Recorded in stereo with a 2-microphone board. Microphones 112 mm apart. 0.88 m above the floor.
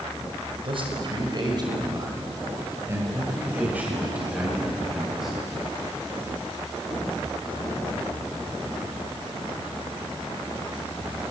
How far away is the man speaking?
About 5 m.